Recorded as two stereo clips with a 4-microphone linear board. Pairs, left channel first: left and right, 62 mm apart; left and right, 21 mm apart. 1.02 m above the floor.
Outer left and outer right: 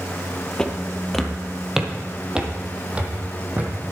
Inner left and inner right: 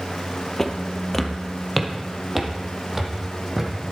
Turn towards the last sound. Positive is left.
turn(degrees=-25)  # may be behind; listen again after turning